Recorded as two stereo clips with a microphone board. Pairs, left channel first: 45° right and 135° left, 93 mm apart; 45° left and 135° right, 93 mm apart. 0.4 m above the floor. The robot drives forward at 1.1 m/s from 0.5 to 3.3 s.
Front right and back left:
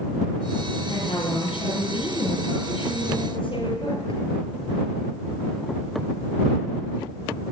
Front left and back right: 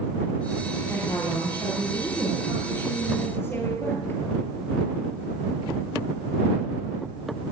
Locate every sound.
0.9 s a woman speaking: 15° right, 10 m; by 4.2 s 25° right, 7.5 m